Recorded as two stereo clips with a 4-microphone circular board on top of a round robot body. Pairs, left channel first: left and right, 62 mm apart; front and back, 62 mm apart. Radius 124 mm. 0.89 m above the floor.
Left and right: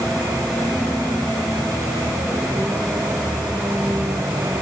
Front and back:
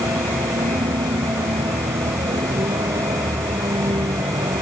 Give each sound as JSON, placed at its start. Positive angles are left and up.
{"t": 0.0, "sound": "a vehicle", "azimuth_deg": -175}